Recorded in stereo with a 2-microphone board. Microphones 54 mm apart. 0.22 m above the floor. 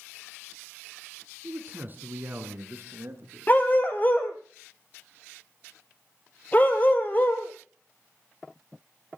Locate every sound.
1.4 s a man speaking: 30° right (ahead or behind), 2.5 m; by 3.5 s 50° right (ahead or behind), 3.5 m
3.5 s a dog barking: 35° left (ahead or behind), 2 m